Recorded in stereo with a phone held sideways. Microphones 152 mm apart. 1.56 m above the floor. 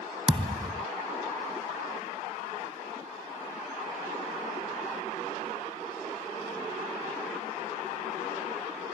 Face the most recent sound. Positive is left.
turn(degrees=-35)  # may be behind; listen again after turning